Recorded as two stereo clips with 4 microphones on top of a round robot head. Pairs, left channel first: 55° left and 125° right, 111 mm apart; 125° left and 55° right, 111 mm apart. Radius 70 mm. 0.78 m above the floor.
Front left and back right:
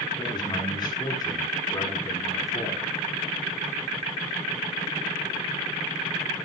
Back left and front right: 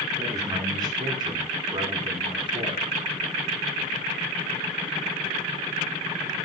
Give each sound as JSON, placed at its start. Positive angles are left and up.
{"t": 0.2, "sound": "a man speaking", "azimuth_deg": 5, "distance_m": 8.0}